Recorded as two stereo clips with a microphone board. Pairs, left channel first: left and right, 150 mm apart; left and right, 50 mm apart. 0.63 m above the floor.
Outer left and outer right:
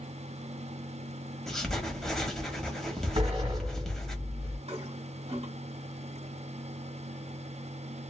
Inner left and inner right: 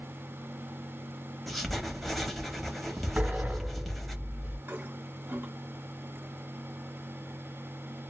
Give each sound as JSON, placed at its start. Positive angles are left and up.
{"t": 1.5, "sound": "writing", "side_deg": 5, "distance_m": 1.1}
{"t": 3.2, "sound": "a sliding door", "side_deg": -40, "distance_m": 1.5}
{"t": 4.7, "sound": "a toilet flushing", "side_deg": -45, "distance_m": 1.3}